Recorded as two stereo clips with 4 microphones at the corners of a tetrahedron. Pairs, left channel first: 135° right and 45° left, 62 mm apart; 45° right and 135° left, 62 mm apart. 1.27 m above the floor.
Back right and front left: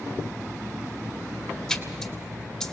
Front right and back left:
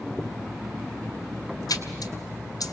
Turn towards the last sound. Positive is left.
turn(degrees=-50)